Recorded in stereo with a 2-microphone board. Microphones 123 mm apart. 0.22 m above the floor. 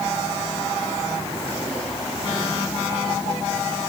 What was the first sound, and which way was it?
Only background noise.